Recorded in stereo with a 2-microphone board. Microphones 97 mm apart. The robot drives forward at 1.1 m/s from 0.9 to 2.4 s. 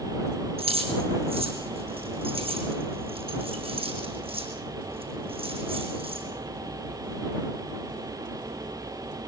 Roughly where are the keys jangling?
Right.